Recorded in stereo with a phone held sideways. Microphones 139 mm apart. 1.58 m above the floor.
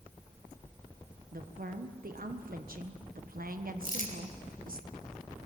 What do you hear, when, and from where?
1.3 s a woman speaking: 75° right (ahead or behind), 1.3 m
3.8 s crumpling: 70° left (ahead or behind), 3.5 m